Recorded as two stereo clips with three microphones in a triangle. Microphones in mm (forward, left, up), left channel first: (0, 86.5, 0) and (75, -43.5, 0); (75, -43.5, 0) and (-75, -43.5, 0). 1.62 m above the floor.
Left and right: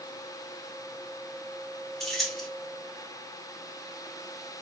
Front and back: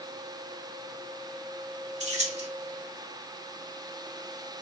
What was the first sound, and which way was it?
Keys jangling, 155° right.